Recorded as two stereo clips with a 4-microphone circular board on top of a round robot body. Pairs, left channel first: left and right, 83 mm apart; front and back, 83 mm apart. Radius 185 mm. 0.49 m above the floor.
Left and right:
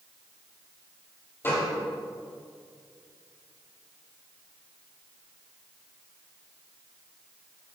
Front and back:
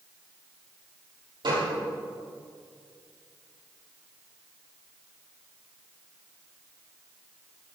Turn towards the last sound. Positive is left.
turn(degrees=155)